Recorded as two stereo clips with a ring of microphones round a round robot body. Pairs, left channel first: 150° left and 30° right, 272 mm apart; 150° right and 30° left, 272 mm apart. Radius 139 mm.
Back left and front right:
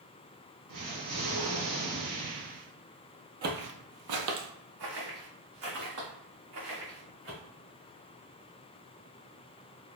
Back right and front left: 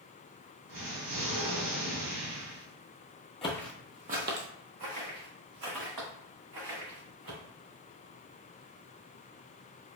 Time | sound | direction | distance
0.7 | an explosion | 5° left | 2 m
3.4 | footsteps | 80° right | 0.9 m